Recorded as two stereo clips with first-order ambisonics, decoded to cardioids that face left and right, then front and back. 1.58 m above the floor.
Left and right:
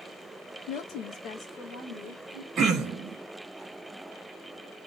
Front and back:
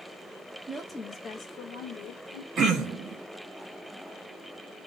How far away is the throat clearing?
About 0.7 m.